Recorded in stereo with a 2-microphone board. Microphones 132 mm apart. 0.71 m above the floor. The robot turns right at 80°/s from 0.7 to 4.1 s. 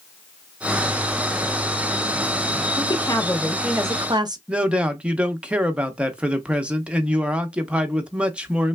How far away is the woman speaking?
About 0.7 m.